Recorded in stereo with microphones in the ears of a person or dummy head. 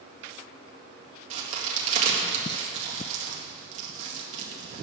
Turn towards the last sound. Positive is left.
turn(degrees=-45)  # may be behind; listen again after turning